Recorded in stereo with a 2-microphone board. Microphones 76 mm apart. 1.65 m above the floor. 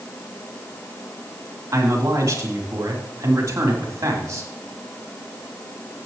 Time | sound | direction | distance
1.7 | a man speaking | 40° right (ahead or behind) | 3.5 m